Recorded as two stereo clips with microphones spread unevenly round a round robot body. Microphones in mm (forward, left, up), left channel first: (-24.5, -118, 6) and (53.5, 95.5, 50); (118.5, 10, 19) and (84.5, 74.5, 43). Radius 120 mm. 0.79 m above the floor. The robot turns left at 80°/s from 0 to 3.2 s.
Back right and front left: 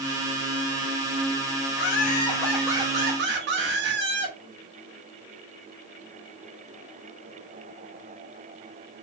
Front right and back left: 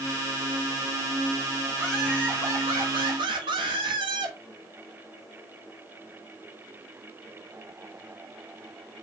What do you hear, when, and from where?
1.8 s laughter: 130° right, 0.8 m; by 4.4 s 115° left, 0.8 m